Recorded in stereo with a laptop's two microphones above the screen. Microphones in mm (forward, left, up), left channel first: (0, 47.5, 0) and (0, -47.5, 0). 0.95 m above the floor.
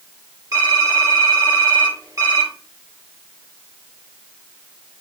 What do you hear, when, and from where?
0.5 s typing on a keyboard: 40° right (ahead or behind), 2.5 m